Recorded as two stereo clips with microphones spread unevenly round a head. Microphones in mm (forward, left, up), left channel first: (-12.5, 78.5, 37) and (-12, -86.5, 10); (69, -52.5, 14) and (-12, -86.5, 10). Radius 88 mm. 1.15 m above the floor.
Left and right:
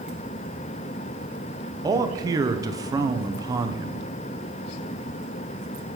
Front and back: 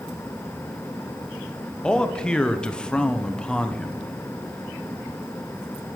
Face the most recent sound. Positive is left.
turn(degrees=-55)